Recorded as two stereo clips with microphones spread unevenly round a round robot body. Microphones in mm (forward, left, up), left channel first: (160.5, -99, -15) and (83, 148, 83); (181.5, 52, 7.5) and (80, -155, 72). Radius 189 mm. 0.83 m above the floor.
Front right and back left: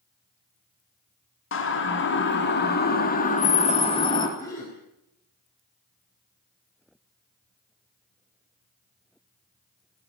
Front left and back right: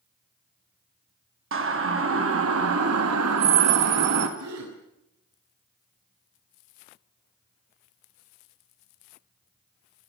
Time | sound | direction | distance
1.5 | a siren | 80° right | 3 m
4.4 | a gasp | 150° right | 4 m